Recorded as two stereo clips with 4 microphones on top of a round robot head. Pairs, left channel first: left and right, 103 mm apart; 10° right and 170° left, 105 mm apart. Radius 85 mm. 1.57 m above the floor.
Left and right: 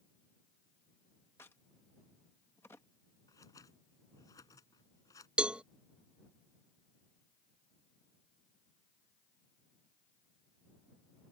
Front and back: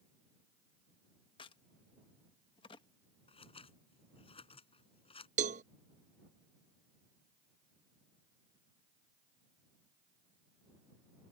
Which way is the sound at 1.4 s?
15° left.